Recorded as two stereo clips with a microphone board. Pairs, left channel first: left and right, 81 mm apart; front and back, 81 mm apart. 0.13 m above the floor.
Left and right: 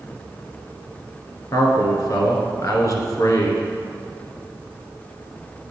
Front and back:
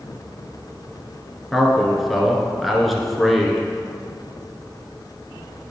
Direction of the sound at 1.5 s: 90° left.